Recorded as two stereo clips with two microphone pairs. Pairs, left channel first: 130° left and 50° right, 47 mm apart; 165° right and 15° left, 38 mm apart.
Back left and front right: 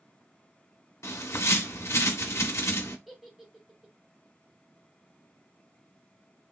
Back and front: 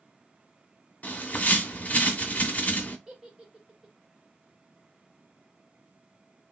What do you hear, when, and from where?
1.0 s a bird: 145° left, 0.8 m
3.1 s a giggle: 20° left, 1.2 m